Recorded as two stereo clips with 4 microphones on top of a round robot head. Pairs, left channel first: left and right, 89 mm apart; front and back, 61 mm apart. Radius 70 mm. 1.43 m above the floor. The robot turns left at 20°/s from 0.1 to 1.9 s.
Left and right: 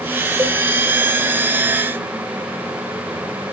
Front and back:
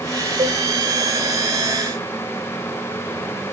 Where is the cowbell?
150° right, 3 m; by 0.6 s 155° right, 3 m.